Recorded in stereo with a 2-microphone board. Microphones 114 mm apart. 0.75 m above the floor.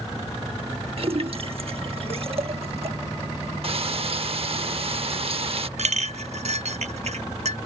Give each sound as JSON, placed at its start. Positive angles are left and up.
{"t": 1.0, "sound": "a splash", "side_deg": -55}
{"t": 3.6, "sound": "frying", "side_deg": -55}
{"t": 5.8, "sound": "a clink", "side_deg": -65}